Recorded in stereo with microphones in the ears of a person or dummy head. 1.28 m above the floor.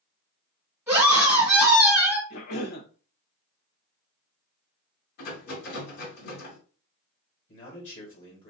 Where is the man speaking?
35° left (ahead or behind), 1.9 m.